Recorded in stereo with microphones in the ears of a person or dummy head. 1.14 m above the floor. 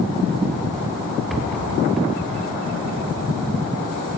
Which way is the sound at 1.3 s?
Centre (ahead or behind).